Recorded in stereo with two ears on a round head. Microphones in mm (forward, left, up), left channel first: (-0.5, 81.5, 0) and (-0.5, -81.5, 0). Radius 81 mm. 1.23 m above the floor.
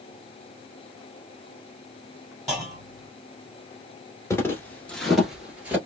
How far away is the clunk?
About 1.8 m.